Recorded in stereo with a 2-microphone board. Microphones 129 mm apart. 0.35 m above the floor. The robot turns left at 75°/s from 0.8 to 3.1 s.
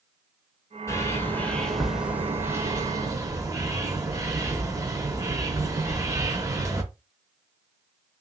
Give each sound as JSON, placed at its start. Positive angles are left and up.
{"t": 0.9, "sound": "a bird", "side_deg": 25, "distance_m": 0.7}